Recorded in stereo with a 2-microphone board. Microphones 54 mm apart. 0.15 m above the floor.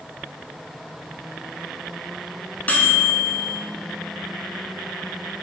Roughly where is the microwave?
Left.